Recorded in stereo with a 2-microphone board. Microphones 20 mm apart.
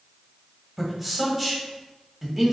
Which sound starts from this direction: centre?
A man speaking, at 0.8 s.